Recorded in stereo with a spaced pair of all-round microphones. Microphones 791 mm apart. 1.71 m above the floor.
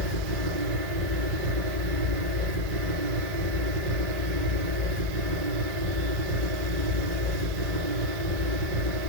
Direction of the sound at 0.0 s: 80° right.